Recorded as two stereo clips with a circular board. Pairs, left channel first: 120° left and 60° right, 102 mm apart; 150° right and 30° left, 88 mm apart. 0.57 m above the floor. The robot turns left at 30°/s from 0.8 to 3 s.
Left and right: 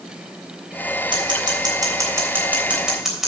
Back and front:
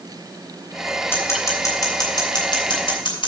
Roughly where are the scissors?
Right.